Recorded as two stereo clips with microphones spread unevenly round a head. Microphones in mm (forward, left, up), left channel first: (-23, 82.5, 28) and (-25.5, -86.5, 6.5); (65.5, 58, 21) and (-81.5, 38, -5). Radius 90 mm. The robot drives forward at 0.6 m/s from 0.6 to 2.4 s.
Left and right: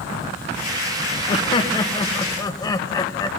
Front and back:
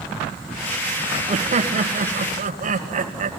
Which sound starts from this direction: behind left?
Laughter, at 1.3 s.